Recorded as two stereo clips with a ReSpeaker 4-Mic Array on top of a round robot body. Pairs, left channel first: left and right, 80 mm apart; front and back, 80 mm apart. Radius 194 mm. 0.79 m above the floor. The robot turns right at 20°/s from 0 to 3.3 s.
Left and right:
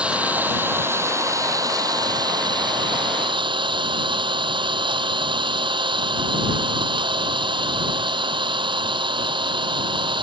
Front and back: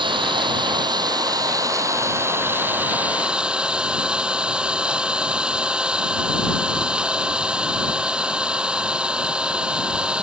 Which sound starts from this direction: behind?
An engine running, at 0.0 s.